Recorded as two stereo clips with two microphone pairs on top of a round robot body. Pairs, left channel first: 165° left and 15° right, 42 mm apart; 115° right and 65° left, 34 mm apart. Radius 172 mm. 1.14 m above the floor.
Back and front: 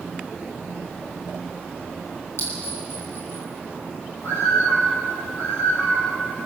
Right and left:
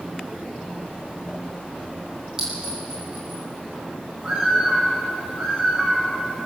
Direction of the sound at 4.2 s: 145° left.